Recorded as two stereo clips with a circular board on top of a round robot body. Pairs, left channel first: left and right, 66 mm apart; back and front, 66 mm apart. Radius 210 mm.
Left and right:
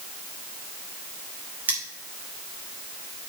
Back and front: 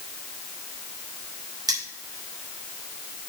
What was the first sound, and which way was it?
Cutlery clinking, 25° right.